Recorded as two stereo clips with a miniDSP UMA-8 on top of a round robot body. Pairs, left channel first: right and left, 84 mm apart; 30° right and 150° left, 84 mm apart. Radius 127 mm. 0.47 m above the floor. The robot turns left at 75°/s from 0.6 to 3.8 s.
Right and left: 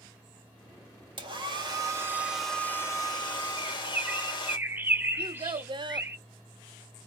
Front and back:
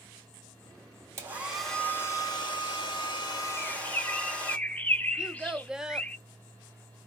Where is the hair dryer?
95° left, 2.5 m; by 4.6 s 105° right, 2.5 m.